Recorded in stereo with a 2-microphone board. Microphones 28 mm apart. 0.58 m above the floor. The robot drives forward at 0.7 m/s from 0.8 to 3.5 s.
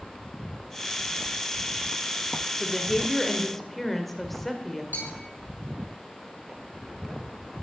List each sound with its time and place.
2.6 s a woman speaking: 10° left (ahead or behind), 1.4 m; by 4.8 s 5° left (ahead or behind), 2.0 m
4.9 s a bell: 75° left (ahead or behind), 5 m